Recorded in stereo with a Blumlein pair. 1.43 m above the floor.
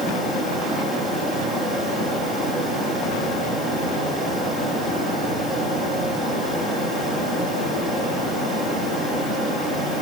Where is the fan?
15° right, 9.5 m.